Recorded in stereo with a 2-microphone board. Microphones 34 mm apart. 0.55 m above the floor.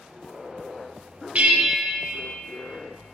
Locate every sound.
1.4 s a bell: 45° right (ahead or behind), 0.5 m